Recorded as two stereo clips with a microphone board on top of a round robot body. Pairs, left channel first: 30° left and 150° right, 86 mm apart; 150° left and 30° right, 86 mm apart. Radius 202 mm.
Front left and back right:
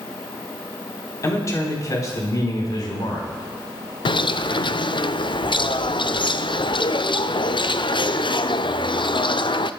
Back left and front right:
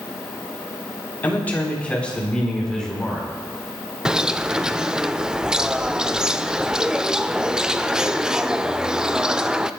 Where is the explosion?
I don't hear an explosion.